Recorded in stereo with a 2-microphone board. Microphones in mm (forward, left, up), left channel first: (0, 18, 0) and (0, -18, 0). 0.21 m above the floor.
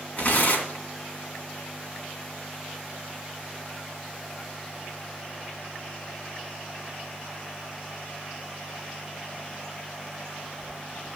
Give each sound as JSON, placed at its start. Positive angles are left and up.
{"t": 0.2, "sound": "tearing paper", "side_deg": 45, "distance_m": 2.5}